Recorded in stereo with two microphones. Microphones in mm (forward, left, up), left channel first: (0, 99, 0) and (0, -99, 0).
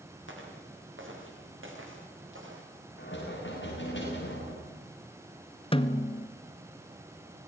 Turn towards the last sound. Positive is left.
turn(degrees=30)  # may be behind; listen again after turning